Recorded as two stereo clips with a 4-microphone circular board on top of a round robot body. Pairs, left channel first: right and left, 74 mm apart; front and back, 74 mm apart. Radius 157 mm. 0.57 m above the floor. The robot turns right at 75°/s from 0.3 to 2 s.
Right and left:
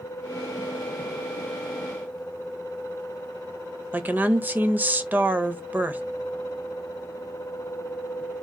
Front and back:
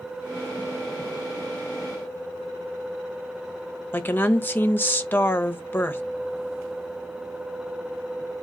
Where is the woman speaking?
40° left, 1.1 m.